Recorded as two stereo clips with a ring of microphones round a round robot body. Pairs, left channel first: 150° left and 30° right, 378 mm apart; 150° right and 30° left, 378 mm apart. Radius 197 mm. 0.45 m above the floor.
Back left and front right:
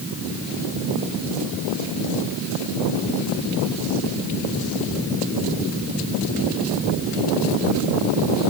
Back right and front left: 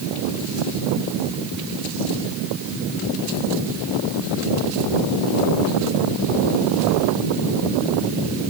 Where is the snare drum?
I don't hear a snare drum.